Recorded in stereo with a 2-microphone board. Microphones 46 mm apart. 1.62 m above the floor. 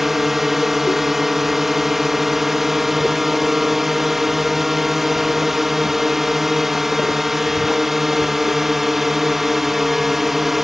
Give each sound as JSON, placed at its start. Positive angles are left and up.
{"t": 0.0, "sound": "a drone", "side_deg": -5}